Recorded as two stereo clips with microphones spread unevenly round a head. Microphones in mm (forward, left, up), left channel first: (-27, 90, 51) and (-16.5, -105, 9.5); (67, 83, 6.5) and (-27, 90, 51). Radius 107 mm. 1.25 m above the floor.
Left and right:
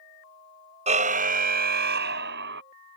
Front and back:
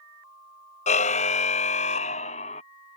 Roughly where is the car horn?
Ahead.